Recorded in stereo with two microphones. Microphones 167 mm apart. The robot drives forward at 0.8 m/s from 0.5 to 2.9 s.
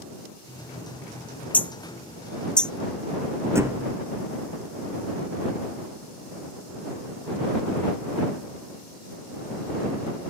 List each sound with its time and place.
1.5 s hammering: 10° left (ahead or behind); by 2.7 s 5° left (ahead or behind)
3.5 s a thud: 15° right (ahead or behind)